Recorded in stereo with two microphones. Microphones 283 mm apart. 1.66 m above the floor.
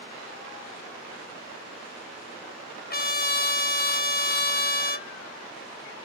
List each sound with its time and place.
2.9 s a trumpet: 35° left (ahead or behind), 0.5 m